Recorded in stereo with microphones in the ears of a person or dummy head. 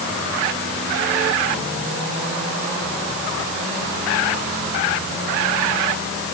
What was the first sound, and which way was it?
Only background noise.